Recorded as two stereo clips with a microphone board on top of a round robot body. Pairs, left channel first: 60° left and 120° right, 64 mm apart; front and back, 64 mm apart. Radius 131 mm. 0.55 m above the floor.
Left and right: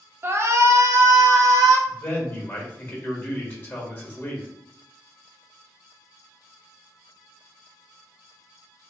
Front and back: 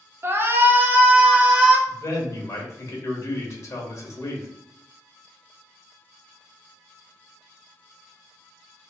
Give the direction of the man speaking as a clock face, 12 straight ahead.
11 o'clock.